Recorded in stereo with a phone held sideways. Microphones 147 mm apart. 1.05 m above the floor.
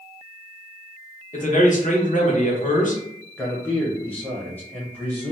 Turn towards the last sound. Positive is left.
turn(degrees=10)  # may be behind; listen again after turning